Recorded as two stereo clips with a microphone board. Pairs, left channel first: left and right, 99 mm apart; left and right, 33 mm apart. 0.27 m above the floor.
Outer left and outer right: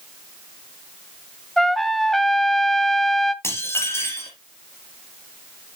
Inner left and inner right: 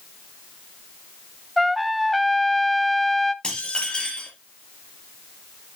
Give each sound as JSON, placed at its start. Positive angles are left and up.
{"t": 1.6, "sound": "a trumpet", "side_deg": 0, "distance_m": 0.7}
{"t": 3.4, "sound": "dishes clattering", "side_deg": 25, "distance_m": 4.0}